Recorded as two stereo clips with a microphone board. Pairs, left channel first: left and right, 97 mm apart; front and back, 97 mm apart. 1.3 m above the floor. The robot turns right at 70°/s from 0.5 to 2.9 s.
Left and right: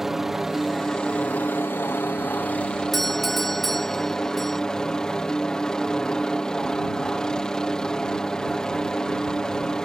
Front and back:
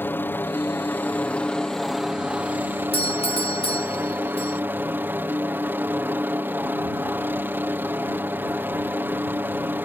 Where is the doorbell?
Straight ahead.